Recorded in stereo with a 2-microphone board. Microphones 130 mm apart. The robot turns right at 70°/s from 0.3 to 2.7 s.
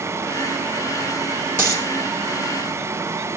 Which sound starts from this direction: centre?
A dropped coin, at 1.6 s.